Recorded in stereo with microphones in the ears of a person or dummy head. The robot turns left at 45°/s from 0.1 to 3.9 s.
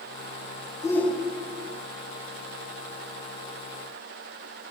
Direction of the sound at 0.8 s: 15° left.